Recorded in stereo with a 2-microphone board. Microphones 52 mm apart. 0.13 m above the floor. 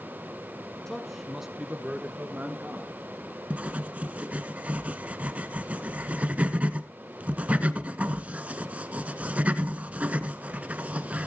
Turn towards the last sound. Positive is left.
turn(degrees=-25)  # may be behind; listen again after turning